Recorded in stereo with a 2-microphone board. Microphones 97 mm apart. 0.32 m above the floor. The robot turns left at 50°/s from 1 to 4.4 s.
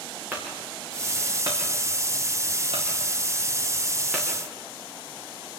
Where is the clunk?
20° right (ahead or behind), 6 m; by 4.3 s 5° left (ahead or behind), 6 m.